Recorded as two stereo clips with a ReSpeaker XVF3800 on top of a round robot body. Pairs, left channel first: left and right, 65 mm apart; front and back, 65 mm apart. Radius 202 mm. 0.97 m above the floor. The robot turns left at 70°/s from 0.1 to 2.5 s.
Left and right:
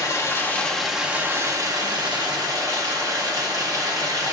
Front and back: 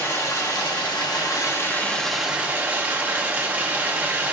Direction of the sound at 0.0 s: 55° left.